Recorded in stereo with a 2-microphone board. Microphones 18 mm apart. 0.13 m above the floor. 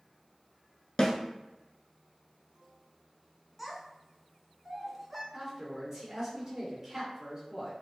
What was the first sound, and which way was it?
A snare drum, 45° left (ahead or behind).